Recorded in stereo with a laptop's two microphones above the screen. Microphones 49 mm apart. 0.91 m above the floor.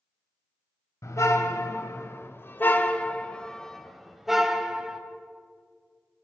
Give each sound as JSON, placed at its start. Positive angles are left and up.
{"t": 1.0, "sound": "a car horn", "side_deg": 80, "distance_m": 2.5}